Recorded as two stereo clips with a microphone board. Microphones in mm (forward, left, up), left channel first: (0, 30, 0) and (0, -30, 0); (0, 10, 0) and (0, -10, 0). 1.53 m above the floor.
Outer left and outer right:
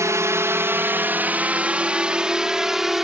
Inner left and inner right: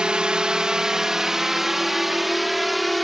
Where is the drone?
55° right (ahead or behind); by 3.0 s 5° right (ahead or behind).